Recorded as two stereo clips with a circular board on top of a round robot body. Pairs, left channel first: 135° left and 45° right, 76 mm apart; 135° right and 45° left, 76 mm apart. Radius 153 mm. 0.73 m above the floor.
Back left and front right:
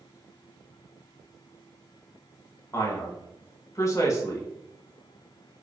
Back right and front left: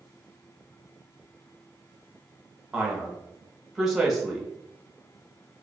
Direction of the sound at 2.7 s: 130° left.